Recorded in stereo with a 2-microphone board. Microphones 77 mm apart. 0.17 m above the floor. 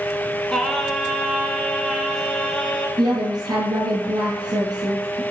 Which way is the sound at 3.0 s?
60° right (ahead or behind).